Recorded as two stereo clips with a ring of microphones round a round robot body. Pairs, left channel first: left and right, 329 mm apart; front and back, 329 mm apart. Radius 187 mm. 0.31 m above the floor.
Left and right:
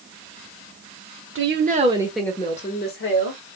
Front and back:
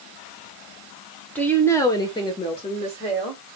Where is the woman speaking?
85° right, 1.4 m; by 3.4 s 70° left, 1.7 m.